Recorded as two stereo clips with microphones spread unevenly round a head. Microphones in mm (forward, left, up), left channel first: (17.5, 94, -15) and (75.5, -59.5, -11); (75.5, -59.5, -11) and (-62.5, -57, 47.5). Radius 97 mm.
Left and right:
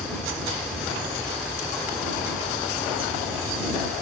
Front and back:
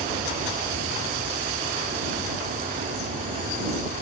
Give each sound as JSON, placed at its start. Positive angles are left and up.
{"t": 0.0, "sound": "an insect", "azimuth_deg": -160}